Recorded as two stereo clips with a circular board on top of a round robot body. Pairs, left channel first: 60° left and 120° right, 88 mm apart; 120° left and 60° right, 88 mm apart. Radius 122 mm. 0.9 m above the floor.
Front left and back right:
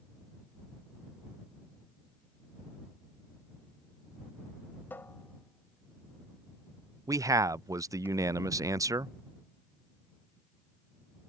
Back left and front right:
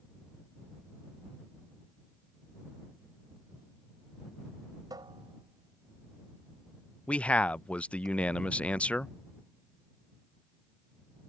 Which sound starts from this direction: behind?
A man speaking, at 7.1 s.